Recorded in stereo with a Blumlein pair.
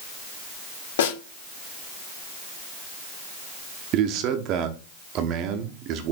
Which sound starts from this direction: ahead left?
A snare drum, at 1.0 s.